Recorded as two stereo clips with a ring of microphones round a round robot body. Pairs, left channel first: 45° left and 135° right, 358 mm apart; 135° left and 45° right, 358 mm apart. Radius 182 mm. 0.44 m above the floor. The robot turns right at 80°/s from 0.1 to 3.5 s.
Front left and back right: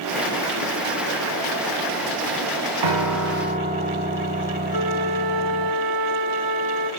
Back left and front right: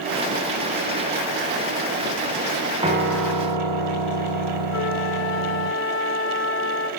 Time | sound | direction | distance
2.8 | a piano | 120° right | 4.5 m
4.7 | a flute | 170° right | 1.6 m